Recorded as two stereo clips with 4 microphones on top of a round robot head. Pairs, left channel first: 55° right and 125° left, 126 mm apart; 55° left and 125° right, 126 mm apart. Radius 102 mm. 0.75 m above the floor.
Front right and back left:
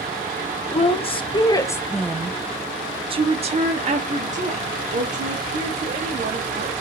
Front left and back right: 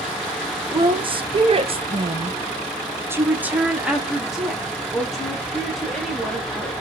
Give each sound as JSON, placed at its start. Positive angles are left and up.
{"t": 0.7, "sound": "a woman speaking", "azimuth_deg": -80, "distance_m": 1.0}